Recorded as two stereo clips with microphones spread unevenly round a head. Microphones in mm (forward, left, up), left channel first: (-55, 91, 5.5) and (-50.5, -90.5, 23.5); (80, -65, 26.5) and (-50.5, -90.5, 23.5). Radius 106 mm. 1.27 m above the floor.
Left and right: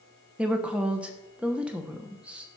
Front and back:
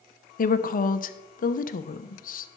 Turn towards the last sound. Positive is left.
turn(degrees=0)